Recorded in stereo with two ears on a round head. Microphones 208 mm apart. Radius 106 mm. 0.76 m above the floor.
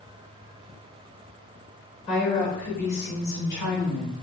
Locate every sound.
2.1 s a woman speaking: 30° left (ahead or behind), 1.1 m; by 4.1 s 55° left (ahead or behind), 3 m